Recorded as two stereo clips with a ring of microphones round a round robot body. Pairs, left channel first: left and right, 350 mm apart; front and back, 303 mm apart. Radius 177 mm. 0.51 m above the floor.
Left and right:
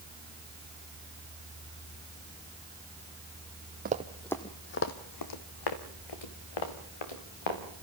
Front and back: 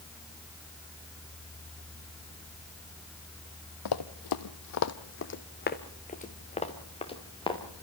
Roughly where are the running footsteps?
Ahead right.